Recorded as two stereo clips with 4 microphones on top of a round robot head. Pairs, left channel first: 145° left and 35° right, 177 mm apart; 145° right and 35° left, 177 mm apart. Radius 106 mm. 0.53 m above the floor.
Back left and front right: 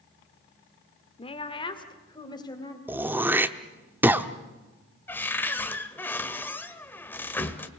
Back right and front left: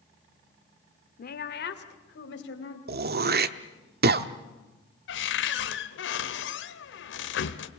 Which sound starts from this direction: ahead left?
Throat clearing, at 2.9 s.